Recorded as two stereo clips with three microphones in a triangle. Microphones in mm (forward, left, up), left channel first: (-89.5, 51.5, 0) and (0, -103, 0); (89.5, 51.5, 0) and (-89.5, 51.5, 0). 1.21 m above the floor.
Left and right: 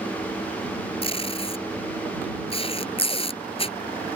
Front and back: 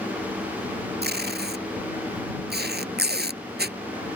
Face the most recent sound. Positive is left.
turn(degrees=175)